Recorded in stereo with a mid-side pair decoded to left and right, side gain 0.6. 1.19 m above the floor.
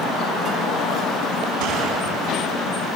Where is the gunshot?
70° right, 7 m.